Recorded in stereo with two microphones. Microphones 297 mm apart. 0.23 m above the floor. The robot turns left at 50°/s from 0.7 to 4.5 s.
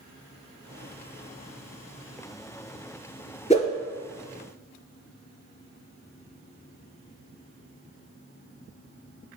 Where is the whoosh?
25° left (ahead or behind), 0.6 m; by 3.7 s 15° left (ahead or behind), 0.6 m.